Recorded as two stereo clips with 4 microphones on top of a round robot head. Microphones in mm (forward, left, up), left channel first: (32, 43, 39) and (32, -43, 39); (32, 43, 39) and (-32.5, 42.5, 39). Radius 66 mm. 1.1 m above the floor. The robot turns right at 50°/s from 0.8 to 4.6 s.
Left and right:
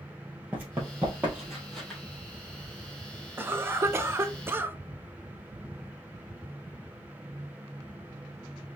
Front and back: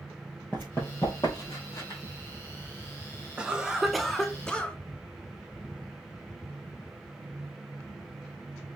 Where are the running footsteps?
40° right, 1.1 m; by 2.0 s 15° left, 1.7 m.